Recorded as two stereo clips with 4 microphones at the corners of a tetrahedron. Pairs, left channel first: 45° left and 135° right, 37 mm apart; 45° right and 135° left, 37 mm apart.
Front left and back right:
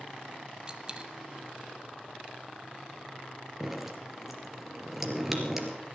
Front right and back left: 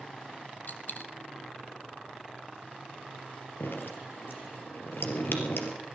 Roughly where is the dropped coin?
Right.